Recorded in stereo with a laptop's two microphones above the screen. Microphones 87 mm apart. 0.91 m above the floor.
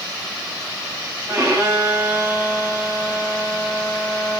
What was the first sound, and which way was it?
A violin, 30° right (ahead or behind).